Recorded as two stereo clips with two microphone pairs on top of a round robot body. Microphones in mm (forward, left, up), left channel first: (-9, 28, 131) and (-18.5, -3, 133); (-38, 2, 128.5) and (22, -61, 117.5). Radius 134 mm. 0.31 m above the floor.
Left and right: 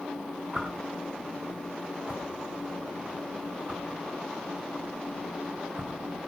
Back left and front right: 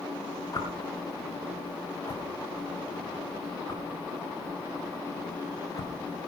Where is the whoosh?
Straight behind, 5 m.